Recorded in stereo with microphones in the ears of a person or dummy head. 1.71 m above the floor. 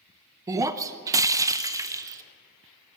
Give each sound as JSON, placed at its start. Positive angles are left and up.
{"t": 0.5, "sound": "breaking glass", "side_deg": -15, "distance_m": 0.9}